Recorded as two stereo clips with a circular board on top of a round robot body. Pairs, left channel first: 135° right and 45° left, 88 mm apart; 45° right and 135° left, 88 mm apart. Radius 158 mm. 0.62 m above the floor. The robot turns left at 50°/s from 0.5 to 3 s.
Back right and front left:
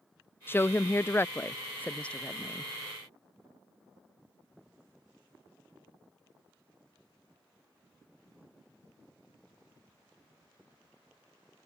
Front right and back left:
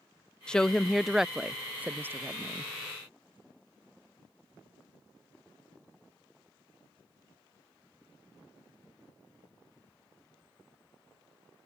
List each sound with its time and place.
0.5 s a woman speaking: 115° right; by 2.7 s 135° left